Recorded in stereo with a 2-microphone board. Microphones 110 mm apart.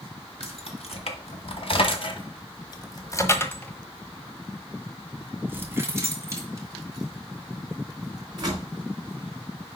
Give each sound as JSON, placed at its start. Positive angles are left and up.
{"t": 0.4, "sound": "keys jangling", "side_deg": 70, "distance_m": 2.0}